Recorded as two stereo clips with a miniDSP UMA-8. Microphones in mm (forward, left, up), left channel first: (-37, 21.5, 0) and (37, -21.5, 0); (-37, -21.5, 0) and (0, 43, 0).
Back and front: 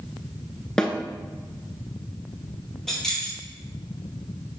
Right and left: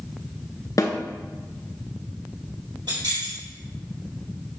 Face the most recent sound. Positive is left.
turn(degrees=65)